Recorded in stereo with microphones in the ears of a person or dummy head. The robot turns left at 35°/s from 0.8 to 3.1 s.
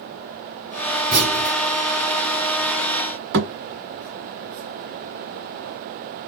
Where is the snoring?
No snoring in this recording.